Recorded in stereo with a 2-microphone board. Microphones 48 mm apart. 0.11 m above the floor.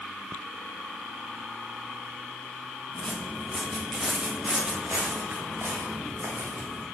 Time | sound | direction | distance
2.9 | footsteps | 15° left (ahead or behind) | 2 m